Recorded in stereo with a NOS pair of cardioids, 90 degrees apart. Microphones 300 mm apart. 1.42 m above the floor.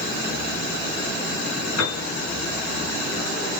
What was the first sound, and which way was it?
A piano, 65° left.